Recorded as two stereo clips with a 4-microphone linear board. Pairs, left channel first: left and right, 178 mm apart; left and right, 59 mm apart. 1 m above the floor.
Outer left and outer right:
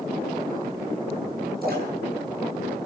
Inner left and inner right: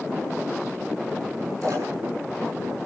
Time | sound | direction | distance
1.6 | a splash | 60° right (ahead or behind) | 5.5 m